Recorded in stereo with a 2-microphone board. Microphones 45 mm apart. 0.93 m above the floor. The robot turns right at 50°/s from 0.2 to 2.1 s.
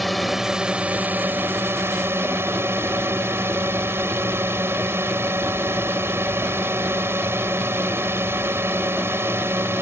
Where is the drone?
Straight behind; by 9.8 s 85° right.